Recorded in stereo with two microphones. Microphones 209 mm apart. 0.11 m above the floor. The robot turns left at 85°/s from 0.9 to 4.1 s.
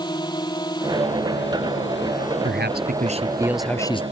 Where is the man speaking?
80° right; by 4.0 s 145° left.